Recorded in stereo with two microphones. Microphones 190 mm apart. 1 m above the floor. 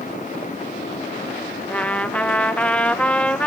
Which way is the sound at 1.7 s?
5° left (ahead or behind).